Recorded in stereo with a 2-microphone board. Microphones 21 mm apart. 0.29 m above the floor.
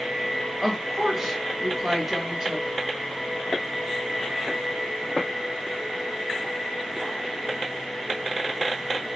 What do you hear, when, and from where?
0.6 s a woman speaking: 10° right (ahead or behind), 2 m